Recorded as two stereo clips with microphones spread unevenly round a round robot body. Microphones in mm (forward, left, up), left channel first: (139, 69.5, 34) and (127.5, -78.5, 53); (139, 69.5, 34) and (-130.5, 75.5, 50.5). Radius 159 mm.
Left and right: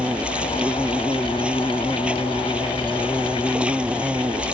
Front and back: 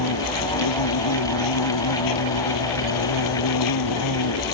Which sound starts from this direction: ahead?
An insect, at 0.0 s.